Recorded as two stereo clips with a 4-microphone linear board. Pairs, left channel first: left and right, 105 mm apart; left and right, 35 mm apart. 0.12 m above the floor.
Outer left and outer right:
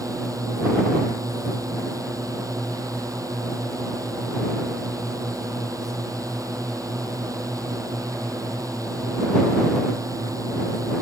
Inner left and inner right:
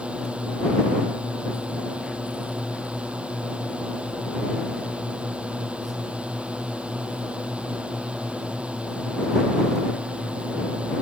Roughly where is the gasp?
I don't hear a gasp.